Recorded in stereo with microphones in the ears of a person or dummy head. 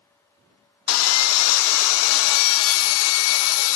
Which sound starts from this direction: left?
Sawing, at 0.9 s.